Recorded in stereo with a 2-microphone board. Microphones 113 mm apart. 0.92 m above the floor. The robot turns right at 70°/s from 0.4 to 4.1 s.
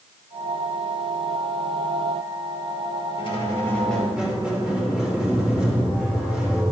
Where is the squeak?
125° left, 2.5 m; by 6.6 s 175° right, 2.5 m.